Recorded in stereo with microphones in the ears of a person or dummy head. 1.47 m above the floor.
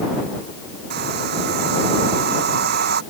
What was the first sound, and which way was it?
A hair dryer, 65° right (ahead or behind).